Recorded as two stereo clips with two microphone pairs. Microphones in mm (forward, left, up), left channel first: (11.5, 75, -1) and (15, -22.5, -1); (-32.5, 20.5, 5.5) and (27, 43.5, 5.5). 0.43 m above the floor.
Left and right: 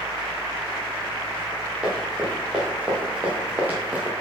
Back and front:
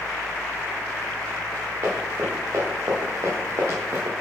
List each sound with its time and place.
1.8 s running footsteps: 10° right, 4 m; by 4.1 s 20° right, 2.5 m